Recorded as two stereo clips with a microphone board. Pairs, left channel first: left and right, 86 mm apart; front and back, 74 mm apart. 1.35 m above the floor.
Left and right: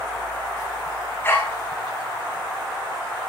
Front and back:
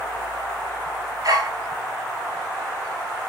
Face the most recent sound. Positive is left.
turn(degrees=150)